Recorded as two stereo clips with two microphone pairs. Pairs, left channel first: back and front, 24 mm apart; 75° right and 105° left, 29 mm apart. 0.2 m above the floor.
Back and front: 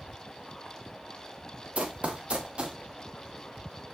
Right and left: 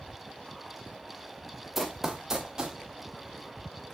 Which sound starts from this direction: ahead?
Running footsteps, at 1.8 s.